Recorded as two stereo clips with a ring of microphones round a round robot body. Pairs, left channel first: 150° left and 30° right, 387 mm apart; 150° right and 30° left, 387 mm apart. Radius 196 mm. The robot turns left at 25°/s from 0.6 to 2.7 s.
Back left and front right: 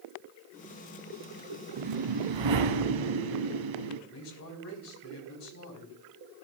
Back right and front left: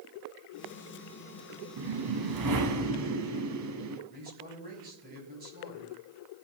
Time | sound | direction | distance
1.8 | a whoosh | 5° left | 1.4 m
4.1 | a man speaking | 95° left | 5 m